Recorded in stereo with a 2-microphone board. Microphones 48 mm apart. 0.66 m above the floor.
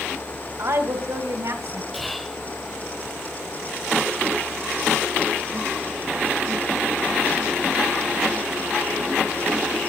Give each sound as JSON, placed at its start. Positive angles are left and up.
{"t": 0.6, "sound": "a woman speaking", "side_deg": -70, "distance_m": 3.0}
{"t": 1.9, "sound": "whispering", "side_deg": 0, "distance_m": 2.5}